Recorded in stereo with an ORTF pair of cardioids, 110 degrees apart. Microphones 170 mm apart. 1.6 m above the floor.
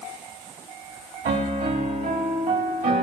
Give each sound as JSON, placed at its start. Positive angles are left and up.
{"t": 1.2, "sound": "a piano", "azimuth_deg": -65, "distance_m": 2.5}